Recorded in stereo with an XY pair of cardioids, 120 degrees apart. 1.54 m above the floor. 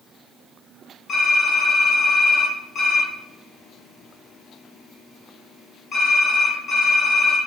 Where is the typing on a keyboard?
40° left, 1.7 m.